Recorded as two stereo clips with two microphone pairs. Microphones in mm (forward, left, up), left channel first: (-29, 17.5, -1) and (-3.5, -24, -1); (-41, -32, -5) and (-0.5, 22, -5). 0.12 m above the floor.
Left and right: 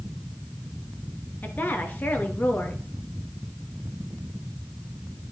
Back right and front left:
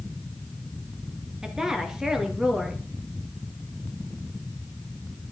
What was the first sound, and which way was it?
A woman speaking, 130° left.